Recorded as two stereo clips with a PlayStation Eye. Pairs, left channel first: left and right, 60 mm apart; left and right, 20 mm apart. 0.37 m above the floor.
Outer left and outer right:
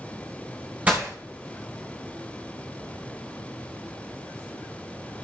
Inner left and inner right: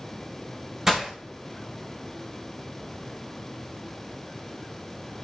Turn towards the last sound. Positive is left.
turn(degrees=-20)  # may be behind; listen again after turning